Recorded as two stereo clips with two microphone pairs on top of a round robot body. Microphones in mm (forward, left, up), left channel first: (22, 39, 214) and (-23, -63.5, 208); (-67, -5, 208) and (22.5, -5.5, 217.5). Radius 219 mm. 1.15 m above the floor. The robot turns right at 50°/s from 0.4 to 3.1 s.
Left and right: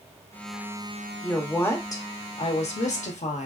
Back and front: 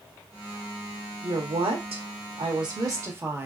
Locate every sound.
1.2 s a woman speaking: 30° right, 0.9 m; by 3.5 s 65° left, 0.9 m